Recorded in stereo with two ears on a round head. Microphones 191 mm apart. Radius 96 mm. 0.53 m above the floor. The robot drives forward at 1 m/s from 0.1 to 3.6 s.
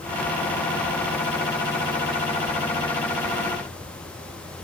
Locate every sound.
Only background noise.